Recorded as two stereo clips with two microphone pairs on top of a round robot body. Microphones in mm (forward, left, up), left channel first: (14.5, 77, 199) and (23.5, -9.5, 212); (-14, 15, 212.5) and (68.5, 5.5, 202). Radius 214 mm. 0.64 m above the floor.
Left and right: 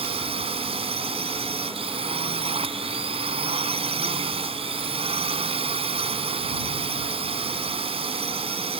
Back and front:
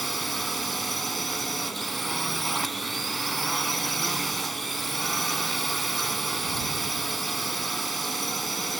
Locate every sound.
0.0 s a drone: 95° right